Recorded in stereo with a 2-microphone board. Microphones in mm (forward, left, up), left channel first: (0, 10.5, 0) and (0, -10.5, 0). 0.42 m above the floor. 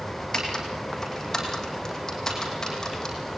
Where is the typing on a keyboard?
25° left (ahead or behind), 5.5 m.